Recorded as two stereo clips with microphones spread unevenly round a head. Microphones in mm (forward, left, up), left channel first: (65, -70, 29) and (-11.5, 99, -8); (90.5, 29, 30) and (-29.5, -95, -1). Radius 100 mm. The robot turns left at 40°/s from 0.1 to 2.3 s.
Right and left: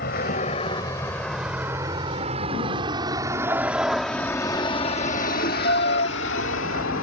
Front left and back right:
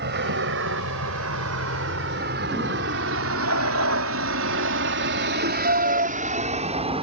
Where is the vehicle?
110° right; by 7.0 s 75° right.